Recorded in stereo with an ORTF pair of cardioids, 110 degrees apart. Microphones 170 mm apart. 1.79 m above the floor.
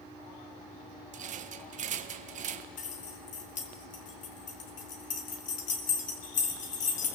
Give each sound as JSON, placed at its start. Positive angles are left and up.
{"t": 1.1, "sound": "a rattle", "azimuth_deg": -50, "distance_m": 1.5}
{"t": 2.8, "sound": "keys jangling", "azimuth_deg": 50, "distance_m": 3.5}